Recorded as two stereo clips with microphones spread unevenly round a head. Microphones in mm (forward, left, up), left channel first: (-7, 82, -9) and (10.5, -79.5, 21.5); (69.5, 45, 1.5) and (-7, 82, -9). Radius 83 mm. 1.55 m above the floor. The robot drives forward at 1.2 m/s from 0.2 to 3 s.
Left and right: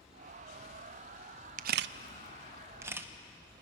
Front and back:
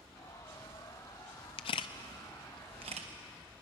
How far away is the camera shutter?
About 0.6 m.